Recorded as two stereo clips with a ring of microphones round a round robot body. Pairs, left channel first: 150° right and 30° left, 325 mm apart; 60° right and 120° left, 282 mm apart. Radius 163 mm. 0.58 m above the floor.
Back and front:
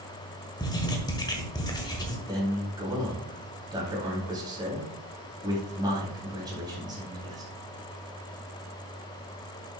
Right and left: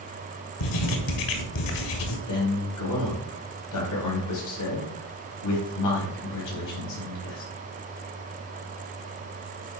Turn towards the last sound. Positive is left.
turn(degrees=-50)